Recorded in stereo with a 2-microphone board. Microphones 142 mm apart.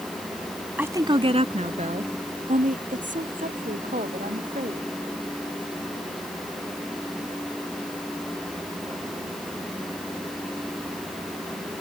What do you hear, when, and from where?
0.8 s a woman speaking: 15° right (ahead or behind); by 4.9 s 70° right (ahead or behind)